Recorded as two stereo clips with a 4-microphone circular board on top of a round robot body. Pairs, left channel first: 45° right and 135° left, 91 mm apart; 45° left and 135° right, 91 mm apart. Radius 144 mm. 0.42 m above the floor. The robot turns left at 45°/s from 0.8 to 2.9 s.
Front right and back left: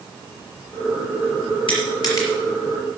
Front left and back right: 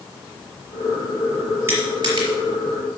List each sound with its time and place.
1.7 s crushing: 75° right, 4.5 m; by 2.3 s 100° right, 4.5 m